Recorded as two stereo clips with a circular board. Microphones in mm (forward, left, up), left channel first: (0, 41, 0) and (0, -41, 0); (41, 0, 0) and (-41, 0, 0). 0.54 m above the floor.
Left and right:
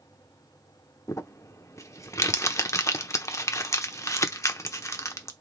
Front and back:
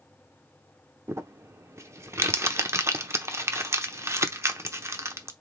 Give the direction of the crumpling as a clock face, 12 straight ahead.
8 o'clock.